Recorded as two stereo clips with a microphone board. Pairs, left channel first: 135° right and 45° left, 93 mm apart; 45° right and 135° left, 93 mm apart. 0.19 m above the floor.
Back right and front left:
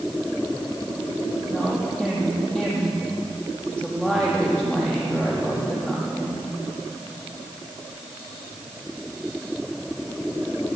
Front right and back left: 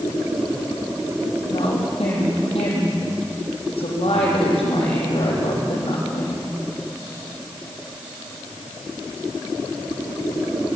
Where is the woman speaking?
55° right, 7.5 m.